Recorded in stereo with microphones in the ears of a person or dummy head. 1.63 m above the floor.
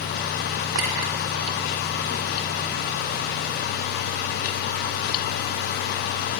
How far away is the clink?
About 3 m.